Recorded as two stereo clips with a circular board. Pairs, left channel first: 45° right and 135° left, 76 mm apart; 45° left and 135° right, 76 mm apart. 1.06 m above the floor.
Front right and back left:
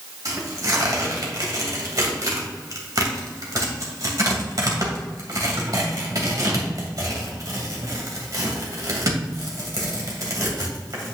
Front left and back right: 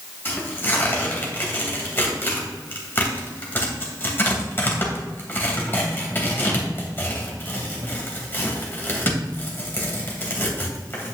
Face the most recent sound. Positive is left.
turn(degrees=105)